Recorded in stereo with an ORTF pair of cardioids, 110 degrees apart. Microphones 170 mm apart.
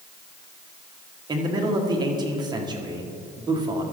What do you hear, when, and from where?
1.3 s a man speaking: 25° right, 1.7 m